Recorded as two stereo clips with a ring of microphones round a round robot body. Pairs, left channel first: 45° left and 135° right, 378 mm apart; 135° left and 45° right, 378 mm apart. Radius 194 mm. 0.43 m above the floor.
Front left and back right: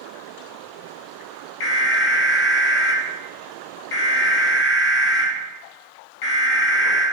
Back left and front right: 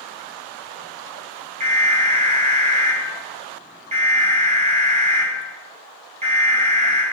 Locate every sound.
1.6 s an alarm: 25° left, 3.5 m